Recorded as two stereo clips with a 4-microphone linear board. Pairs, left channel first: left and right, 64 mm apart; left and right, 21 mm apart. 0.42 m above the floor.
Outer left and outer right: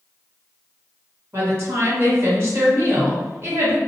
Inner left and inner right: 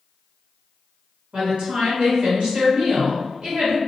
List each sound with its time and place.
1.3 s a woman speaking: 45° right (ahead or behind), 1.5 m